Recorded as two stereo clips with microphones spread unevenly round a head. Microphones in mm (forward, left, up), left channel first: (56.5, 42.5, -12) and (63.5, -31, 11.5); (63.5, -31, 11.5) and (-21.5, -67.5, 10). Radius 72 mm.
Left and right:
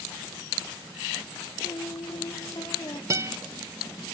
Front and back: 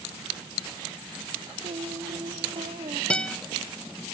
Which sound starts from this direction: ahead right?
A guitar, at 3.1 s.